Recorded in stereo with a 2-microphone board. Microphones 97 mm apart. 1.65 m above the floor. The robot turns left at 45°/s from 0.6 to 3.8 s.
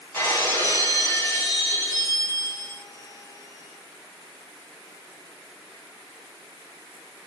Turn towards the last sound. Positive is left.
turn(degrees=-5)